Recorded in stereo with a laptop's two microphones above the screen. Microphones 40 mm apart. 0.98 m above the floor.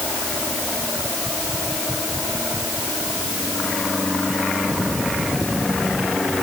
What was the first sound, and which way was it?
Only background noise.